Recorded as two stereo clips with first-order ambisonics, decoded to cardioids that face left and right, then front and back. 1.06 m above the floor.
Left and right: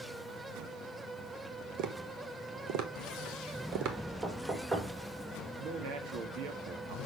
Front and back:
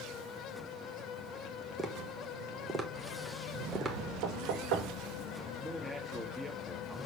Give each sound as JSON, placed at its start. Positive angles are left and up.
{"t": 1.8, "sound": "tapping", "azimuth_deg": -105, "distance_m": 1.3}
{"t": 4.2, "sound": "knocking", "azimuth_deg": -155, "distance_m": 3.5}
{"t": 5.6, "sound": "a man speaking", "azimuth_deg": -90, "distance_m": 1.8}